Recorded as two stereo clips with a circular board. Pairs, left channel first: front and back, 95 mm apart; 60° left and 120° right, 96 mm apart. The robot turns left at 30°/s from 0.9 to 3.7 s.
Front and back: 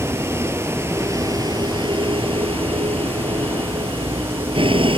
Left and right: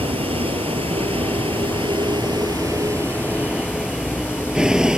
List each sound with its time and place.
0.0 s a vehicle: 120° right; by 5.0 s 160° left